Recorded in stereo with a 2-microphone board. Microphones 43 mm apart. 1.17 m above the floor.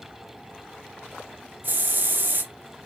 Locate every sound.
1.6 s a hiss: 50° right (ahead or behind), 0.6 m